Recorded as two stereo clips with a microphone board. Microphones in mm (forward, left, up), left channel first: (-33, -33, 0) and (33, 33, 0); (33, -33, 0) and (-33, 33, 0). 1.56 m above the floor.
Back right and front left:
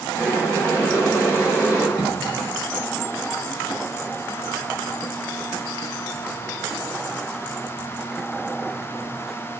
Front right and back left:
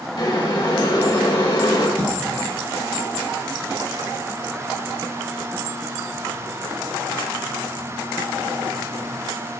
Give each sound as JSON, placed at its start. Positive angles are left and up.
{"t": 0.2, "sound": "boiling", "azimuth_deg": -80, "distance_m": 2.5}
{"t": 2.0, "sound": "a cough", "azimuth_deg": -110, "distance_m": 1.2}